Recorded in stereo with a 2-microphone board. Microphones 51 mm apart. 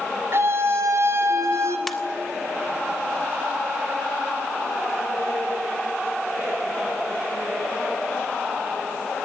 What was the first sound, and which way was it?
A scream, 55° right (ahead or behind).